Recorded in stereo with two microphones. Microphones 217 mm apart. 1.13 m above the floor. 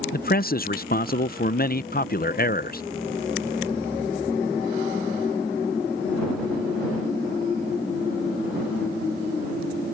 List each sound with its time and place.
0.1 s a man speaking: 45° left (ahead or behind)